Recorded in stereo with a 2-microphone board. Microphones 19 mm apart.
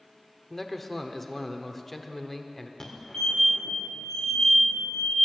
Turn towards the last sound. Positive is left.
turn(degrees=30)  # may be behind; listen again after turning